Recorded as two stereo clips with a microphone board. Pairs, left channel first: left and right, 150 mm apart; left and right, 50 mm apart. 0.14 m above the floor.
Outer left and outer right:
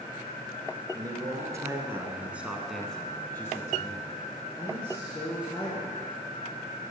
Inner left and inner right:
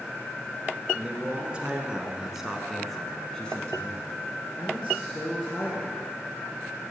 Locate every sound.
0.9 s a man speaking: 25° right (ahead or behind), 1.9 m; by 6.0 s 35° left (ahead or behind), 2.5 m